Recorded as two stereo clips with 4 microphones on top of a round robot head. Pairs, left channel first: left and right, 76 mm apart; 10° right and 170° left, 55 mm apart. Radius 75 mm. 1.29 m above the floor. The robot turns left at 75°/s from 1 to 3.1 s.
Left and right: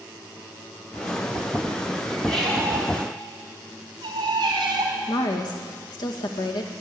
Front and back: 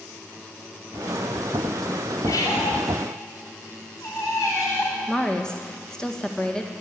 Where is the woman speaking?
70° left, 1.8 m.